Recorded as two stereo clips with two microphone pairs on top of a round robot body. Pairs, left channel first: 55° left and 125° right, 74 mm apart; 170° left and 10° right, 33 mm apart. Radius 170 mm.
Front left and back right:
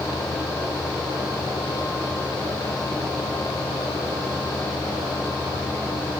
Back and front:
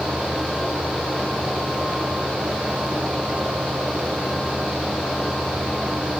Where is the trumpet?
No trumpet in this recording.